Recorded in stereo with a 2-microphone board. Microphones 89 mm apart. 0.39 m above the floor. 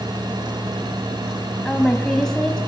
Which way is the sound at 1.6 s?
5° left (ahead or behind).